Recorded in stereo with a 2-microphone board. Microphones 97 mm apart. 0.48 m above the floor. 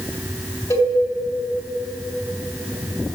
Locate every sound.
0.7 s a cowbell: 30° left (ahead or behind), 3 m